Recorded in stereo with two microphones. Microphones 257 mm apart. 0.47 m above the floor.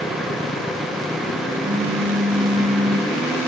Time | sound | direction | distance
1.6 | a phone buzzing | 40° right (ahead or behind) | 7.5 m